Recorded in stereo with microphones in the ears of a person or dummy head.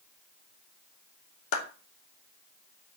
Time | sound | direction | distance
1.5 | a clap | 75° left (ahead or behind) | 2.5 m